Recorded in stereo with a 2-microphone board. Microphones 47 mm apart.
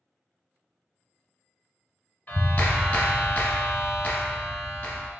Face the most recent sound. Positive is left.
turn(degrees=35)  # may be behind; listen again after turning